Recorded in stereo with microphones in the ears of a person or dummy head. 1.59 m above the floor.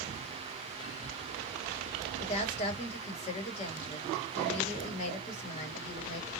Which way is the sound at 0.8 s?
35° left (ahead or behind).